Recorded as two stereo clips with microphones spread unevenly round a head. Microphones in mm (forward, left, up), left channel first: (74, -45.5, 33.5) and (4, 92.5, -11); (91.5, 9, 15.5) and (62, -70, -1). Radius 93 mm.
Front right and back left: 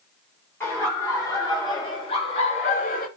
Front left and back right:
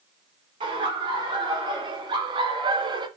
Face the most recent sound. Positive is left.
turn(degrees=-110)